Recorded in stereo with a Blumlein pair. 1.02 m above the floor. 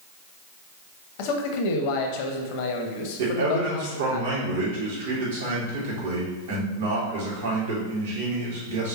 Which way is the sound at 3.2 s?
65° right.